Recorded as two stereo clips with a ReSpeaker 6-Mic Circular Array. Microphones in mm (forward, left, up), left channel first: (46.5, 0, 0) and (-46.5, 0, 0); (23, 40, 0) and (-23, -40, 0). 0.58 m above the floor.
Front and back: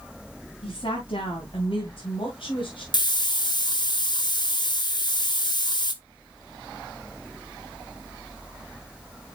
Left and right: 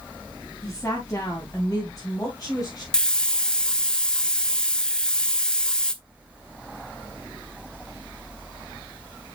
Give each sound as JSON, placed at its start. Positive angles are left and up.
{"t": 0.6, "sound": "a woman speaking", "azimuth_deg": -5, "distance_m": 3.0}
{"t": 2.9, "sound": "a hiss", "azimuth_deg": -20, "distance_m": 0.7}